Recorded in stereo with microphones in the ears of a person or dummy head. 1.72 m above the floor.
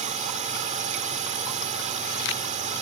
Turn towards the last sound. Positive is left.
turn(degrees=-35)  # may be behind; listen again after turning